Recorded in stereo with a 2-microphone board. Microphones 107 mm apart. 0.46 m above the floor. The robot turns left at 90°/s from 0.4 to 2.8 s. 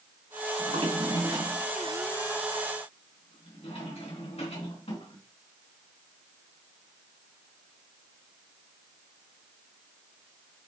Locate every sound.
0.6 s a drawer: 80° right, 3 m; by 5.2 s 70° left (ahead or behind), 3 m